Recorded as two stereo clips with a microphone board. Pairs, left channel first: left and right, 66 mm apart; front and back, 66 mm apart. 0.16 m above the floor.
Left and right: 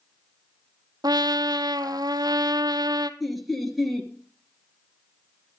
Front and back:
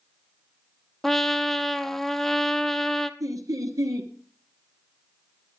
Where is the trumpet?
85° right, 0.7 m.